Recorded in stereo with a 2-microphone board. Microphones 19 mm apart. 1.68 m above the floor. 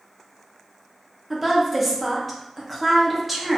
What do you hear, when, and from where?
1.3 s a woman speaking: 5° right (ahead or behind), 0.9 m